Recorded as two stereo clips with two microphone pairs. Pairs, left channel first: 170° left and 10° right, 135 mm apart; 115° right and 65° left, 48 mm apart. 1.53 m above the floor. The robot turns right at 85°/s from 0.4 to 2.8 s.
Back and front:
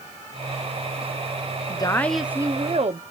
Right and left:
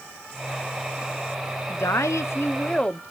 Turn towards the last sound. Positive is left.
turn(degrees=-50)